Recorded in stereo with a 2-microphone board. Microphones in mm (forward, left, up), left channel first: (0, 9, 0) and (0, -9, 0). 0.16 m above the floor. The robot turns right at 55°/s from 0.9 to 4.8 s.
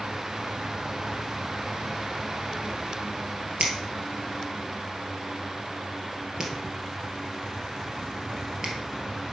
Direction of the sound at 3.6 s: 70° right (ahead or behind).